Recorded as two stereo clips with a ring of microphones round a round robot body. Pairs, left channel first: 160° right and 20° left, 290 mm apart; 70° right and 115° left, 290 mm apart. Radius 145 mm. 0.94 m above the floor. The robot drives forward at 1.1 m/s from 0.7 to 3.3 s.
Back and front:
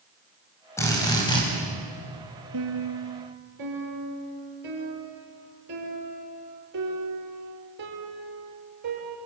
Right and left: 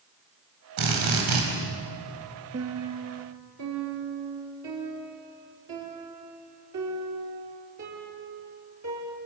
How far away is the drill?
About 5.5 m.